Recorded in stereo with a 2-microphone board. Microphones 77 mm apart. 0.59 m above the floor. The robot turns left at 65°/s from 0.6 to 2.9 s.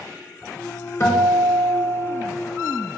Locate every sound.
1.0 s a guitar: 135° left, 0.6 m; by 2.2 s 55° left, 0.6 m